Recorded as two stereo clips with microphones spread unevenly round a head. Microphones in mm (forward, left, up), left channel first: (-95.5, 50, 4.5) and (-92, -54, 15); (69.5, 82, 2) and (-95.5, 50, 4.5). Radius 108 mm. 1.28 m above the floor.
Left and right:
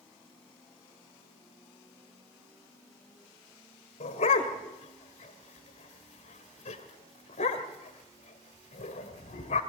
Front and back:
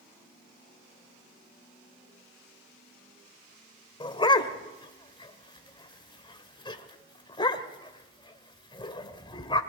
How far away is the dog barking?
About 2 m.